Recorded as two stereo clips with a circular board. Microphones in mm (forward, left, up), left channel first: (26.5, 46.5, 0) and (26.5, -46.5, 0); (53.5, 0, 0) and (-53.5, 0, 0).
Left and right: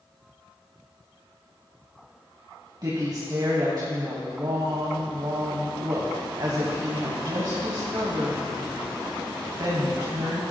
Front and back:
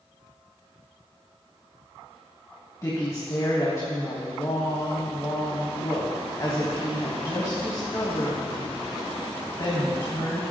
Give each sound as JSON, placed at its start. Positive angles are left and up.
{"t": 2.8, "sound": "a woman speaking", "azimuth_deg": -55, "distance_m": 2.5}